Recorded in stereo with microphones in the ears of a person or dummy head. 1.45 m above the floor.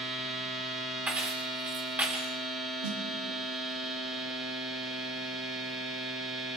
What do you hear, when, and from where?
0.0 s a machine running: centre (ahead or behind), 7.5 m
1.1 s keys jangling: 10° right (ahead or behind), 1.7 m
2.8 s a snare drum: 80° right, 3.5 m